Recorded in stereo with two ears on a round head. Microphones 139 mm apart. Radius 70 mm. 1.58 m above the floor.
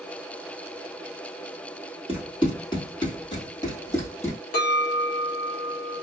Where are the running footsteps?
35° left (ahead or behind), 1.9 m; by 4.4 s 20° left (ahead or behind), 2 m.